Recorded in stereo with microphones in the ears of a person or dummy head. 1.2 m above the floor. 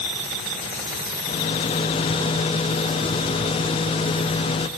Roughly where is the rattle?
Left.